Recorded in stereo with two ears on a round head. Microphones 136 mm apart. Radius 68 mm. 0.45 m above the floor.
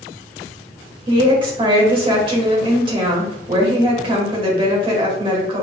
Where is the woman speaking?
35° right (ahead or behind), 1.7 m.